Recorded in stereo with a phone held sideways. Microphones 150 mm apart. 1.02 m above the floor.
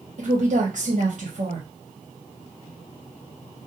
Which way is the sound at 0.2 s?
60° right (ahead or behind).